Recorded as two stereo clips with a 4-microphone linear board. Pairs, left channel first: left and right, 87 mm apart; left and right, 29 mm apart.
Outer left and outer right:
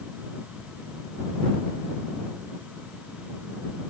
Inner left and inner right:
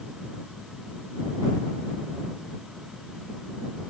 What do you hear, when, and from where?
Only background noise.